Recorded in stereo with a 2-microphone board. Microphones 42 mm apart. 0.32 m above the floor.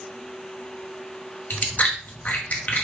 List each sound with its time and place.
1.5 s chewing: 40° left (ahead or behind), 1.8 m